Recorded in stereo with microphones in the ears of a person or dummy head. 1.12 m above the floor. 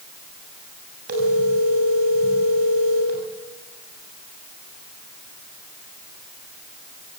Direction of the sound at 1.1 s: 55° right (ahead or behind).